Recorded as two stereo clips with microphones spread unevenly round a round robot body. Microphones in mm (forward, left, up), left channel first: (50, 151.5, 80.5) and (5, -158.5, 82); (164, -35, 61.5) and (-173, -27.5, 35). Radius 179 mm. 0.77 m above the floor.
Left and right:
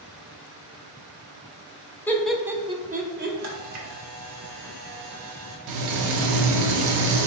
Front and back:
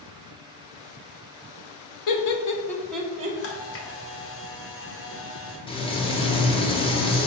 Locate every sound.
2.1 s laughter: straight ahead, 0.9 m; by 3.4 s 135° right, 0.8 m
3.4 s a camera shutter: 55° right, 1.0 m
5.7 s frying: 75° right, 0.6 m